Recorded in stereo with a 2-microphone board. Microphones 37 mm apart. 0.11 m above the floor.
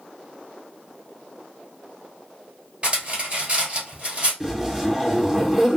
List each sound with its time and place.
2.8 s cutlery clinking: 30° right (ahead or behind), 1.6 m
4.4 s a zipper: 10° right (ahead or behind), 1.8 m